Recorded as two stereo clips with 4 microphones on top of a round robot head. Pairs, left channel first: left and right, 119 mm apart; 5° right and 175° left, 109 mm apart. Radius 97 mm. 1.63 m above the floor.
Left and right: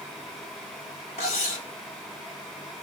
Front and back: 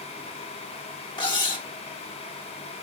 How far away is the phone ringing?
No phone ringing in this recording.